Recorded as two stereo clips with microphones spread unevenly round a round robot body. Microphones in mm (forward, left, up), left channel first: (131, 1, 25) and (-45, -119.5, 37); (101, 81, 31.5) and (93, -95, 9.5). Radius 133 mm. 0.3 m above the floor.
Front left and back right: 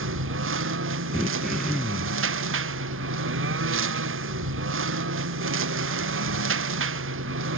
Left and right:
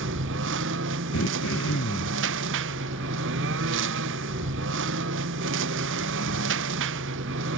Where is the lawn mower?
120° right.